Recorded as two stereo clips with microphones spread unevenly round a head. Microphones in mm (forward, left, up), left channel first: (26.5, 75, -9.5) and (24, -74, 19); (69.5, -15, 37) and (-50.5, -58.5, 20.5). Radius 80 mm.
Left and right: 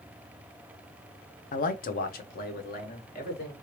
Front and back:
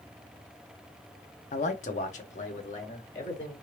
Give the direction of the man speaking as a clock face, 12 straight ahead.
10 o'clock.